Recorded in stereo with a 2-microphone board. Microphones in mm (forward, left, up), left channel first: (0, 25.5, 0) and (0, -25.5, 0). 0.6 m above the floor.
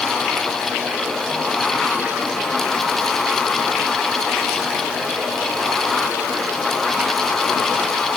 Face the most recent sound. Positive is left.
No sound to turn to.